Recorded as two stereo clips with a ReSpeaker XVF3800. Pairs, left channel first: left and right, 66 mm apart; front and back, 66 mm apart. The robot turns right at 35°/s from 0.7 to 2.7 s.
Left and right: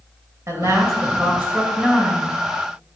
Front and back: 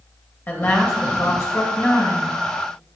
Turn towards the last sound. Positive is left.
turn(degrees=15)